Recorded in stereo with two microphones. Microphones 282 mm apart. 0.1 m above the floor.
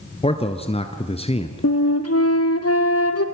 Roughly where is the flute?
Left.